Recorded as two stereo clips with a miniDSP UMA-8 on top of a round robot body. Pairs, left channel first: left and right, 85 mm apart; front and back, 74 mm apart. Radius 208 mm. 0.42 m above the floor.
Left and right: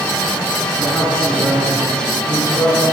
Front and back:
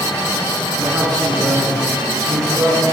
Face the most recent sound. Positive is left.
turn(degrees=165)